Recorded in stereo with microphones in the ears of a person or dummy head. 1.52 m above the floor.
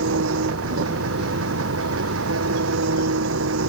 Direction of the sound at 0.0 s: 85° right.